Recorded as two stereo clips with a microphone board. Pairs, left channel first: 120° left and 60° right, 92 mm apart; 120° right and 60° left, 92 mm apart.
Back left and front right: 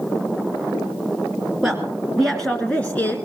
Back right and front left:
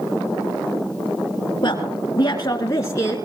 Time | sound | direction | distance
1.6 | a woman speaking | 145° right | 1.9 m